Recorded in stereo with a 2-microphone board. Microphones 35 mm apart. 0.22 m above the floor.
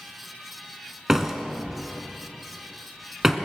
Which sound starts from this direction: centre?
A door slam, at 1.1 s.